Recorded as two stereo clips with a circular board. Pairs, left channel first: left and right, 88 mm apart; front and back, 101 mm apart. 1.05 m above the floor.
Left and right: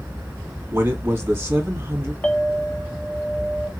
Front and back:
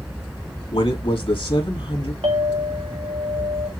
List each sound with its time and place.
0.7 s a man speaking: 25° right, 2 m
2.2 s a clink: 165° left, 1.5 m